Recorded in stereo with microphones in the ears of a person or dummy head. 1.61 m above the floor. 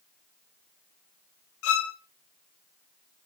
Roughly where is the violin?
Left.